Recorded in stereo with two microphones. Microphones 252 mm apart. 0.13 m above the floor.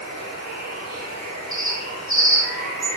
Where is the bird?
55° right (ahead or behind), 2.5 m.